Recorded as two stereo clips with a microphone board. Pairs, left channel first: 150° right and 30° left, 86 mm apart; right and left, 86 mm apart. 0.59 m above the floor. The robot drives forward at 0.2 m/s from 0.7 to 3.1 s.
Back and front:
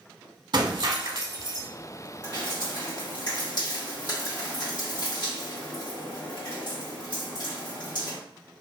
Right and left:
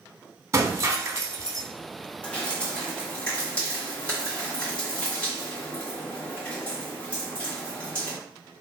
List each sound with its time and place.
0.5 s breaking glass: 40° left, 0.7 m; by 1.7 s 60° left, 0.6 m
2.2 s dripping: 165° right, 1.9 m